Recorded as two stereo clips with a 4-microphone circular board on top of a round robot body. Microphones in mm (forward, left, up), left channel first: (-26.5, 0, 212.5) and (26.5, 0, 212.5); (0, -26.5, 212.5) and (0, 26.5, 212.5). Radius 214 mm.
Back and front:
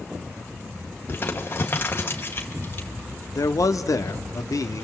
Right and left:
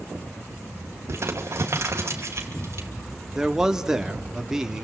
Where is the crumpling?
130° left, 2.5 m.